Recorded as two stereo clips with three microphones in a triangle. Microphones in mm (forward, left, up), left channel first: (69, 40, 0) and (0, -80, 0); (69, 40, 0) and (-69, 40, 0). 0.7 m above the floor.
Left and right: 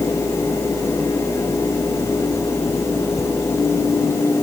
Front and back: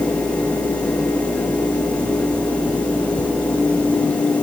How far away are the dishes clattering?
No dishes clattering in this recording.